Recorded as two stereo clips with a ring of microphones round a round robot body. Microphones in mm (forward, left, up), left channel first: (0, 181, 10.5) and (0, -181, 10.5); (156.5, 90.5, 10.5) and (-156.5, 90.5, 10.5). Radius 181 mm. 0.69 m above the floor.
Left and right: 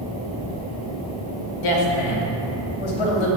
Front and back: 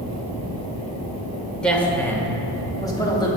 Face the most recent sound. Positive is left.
turn(degrees=75)